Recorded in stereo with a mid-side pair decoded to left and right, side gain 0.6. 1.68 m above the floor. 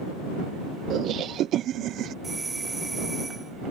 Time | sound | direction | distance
0.9 | laughter | 55° right | ?
2.2 | a doorbell | 20° right | ?